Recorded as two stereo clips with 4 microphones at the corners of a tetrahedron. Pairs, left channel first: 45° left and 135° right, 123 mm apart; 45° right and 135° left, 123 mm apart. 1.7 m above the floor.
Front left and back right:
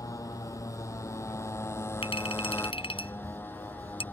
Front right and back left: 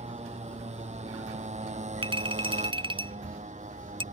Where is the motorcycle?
105° left; by 4.1 s 120° left.